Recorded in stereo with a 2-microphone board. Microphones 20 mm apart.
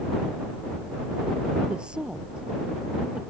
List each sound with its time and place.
1.7 s a woman speaking: 60° right (ahead or behind)